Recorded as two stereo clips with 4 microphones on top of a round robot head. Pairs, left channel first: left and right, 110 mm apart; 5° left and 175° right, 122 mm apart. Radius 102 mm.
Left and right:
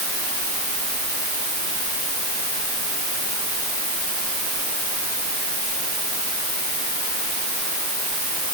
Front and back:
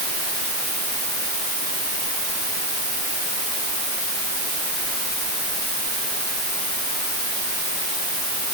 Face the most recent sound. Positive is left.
No sound to turn to.